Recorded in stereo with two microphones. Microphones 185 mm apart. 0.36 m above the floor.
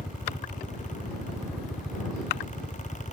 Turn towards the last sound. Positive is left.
turn(degrees=0)  # may be behind; listen again after turning